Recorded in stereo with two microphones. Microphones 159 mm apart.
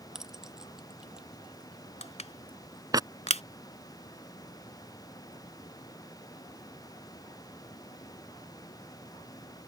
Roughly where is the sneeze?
No sneeze in this recording.